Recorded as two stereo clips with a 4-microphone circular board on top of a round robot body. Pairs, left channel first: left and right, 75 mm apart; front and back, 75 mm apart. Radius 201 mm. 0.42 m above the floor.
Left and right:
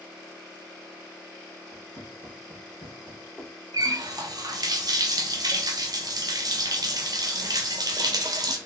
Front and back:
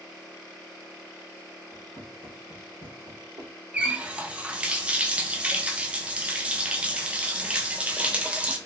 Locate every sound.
1.7 s footsteps: 125° right, 0.9 m; by 3.5 s 175° left, 1.1 m
3.7 s a running tap: 110° right, 0.6 m